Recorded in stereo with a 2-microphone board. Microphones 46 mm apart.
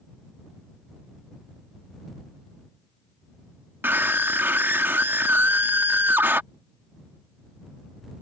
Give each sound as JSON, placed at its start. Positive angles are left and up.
{"t": 3.8, "sound": "a scream", "side_deg": -50}